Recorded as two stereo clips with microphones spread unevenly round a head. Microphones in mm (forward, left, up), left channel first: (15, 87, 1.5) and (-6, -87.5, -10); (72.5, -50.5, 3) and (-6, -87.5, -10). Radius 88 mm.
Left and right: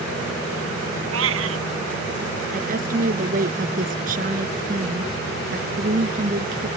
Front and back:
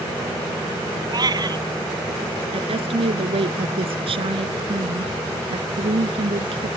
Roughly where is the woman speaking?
Behind right.